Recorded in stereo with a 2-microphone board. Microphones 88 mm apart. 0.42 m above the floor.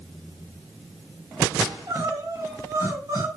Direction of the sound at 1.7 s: 40° right (ahead or behind).